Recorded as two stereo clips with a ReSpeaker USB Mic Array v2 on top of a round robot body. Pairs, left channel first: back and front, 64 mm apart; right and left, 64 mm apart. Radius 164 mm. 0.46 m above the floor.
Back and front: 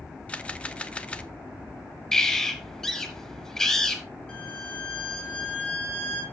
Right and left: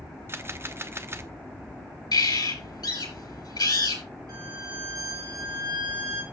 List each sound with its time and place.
0.3 s a camera shutter: 115° left, 1.2 m
2.1 s a bird: 95° right, 5 m
4.3 s a violin: 105° left, 4 m